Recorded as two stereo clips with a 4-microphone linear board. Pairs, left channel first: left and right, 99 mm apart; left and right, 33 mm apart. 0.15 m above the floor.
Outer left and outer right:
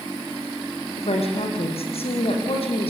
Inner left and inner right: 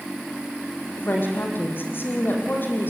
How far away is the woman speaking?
About 5.5 m.